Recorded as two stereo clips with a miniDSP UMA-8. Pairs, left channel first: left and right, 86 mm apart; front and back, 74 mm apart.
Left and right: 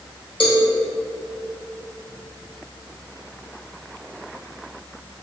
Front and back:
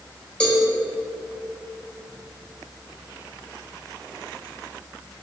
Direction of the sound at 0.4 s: 75° left.